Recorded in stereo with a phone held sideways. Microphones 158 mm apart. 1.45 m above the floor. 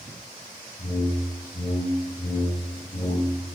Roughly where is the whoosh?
Left.